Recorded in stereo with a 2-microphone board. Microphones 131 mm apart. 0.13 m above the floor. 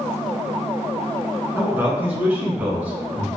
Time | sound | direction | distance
1.6 | a man speaking | 15° right (ahead or behind) | 1.2 m